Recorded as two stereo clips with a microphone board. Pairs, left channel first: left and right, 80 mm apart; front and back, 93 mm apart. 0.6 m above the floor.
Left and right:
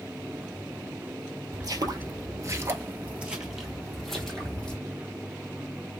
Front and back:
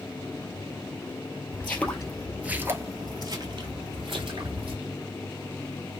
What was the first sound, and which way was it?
Footsteps, 65° right.